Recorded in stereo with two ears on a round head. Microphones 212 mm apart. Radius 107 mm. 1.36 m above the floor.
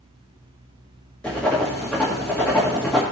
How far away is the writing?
About 1.8 m.